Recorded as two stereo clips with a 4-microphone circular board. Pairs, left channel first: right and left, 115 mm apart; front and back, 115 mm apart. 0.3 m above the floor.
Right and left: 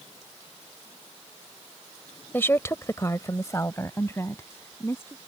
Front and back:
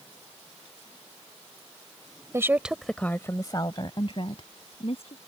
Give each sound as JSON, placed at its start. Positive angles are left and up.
{"t": 2.3, "sound": "a woman speaking", "azimuth_deg": -145}